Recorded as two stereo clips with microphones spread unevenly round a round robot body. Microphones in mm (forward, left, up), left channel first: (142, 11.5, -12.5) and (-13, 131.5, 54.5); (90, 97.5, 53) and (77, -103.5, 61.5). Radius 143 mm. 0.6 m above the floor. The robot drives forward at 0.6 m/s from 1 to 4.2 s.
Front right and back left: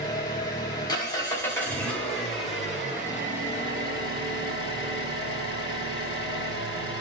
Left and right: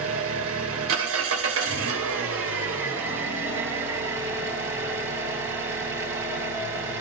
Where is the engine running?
105° right, 2.5 m; by 7.0 s 135° right, 3.5 m.